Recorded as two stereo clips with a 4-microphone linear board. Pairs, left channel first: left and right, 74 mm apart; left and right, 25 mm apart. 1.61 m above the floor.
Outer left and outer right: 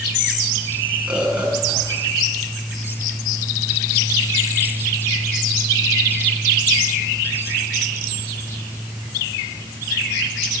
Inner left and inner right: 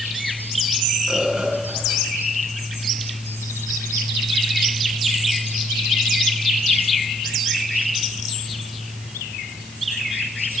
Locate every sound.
1.1 s a bird: 15° right (ahead or behind), 6.5 m